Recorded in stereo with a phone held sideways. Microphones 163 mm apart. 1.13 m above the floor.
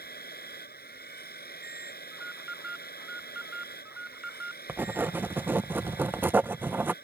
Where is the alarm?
5° right (ahead or behind).